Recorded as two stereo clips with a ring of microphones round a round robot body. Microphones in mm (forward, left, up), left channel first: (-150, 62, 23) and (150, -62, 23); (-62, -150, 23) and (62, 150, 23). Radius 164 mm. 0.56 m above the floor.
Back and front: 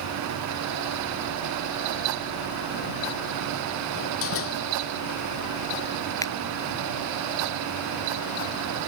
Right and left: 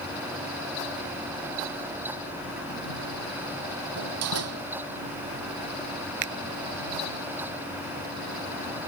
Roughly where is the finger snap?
Left.